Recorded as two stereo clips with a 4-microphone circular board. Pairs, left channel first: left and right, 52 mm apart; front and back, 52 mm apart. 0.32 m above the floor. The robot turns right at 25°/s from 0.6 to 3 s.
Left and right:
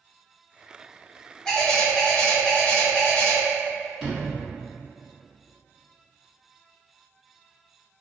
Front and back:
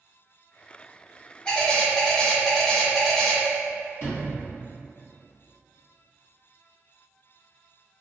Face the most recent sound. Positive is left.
turn(degrees=0)